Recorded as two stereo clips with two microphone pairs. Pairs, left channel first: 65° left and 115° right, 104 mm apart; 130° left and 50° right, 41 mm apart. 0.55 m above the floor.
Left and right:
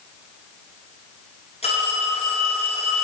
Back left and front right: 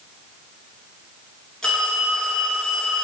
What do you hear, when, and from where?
1.6 s a phone ringing: 50° left, 6 m